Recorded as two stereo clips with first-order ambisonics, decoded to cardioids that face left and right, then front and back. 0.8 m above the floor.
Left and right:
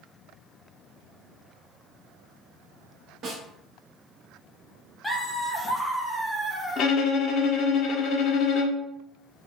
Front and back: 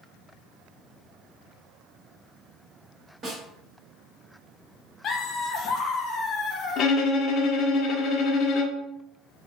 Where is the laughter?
15° left, 0.5 m.